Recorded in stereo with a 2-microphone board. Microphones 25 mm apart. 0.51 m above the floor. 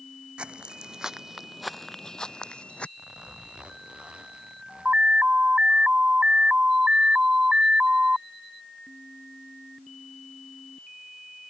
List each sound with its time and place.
0.4 s footsteps: 45° right (ahead or behind); by 2.9 s 55° left (ahead or behind)
3.0 s a zipper: 40° right (ahead or behind)
4.8 s an alarm: 50° right (ahead or behind)